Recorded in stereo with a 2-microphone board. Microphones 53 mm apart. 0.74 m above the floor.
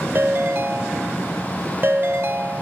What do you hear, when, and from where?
0.1 s a ringtone: 45° right (ahead or behind), 1.5 m